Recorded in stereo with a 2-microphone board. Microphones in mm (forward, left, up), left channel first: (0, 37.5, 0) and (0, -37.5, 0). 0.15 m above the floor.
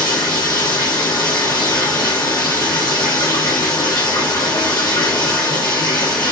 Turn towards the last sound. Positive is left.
turn(degrees=75)  # may be behind; listen again after turning